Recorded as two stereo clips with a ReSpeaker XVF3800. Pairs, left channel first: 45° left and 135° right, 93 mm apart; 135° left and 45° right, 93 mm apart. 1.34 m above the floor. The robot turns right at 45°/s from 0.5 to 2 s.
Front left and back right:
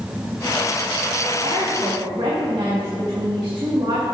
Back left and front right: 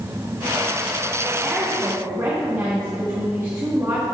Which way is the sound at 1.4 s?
135° right.